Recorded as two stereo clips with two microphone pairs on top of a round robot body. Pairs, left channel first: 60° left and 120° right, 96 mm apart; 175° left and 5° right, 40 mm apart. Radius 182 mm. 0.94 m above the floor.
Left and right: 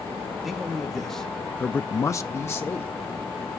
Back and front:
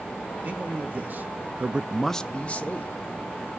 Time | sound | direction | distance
0.4 | a man speaking | 35° right | 1.5 m